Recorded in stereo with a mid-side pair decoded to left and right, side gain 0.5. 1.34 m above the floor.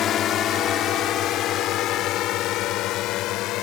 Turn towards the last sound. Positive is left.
turn(degrees=75)